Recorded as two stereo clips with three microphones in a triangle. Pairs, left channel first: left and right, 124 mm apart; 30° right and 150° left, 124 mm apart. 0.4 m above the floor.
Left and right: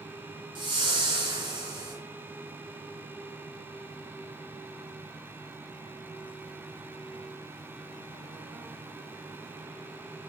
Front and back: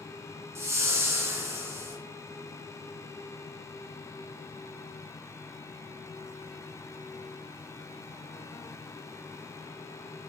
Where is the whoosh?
140° right, 1.7 m.